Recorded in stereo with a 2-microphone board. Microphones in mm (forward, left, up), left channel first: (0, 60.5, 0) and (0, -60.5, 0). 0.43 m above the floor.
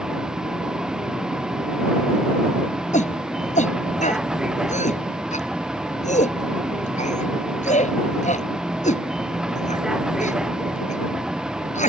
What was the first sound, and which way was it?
A vehicle, 5° right (ahead or behind).